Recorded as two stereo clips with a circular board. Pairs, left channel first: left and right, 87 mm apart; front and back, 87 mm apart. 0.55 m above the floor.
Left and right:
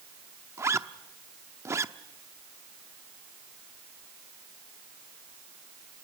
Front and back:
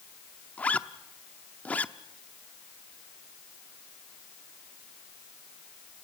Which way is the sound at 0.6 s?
60° right.